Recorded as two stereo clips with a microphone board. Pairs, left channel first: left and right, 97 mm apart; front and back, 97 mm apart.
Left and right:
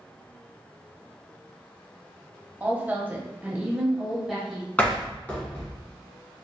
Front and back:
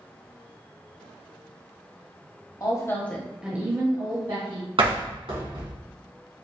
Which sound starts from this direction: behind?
A door slam, at 4.8 s.